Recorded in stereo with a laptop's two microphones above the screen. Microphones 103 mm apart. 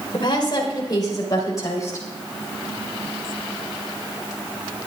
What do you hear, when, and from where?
0.1 s a woman speaking: 50° left (ahead or behind), 3.5 m; by 2.1 s 30° left (ahead or behind), 4 m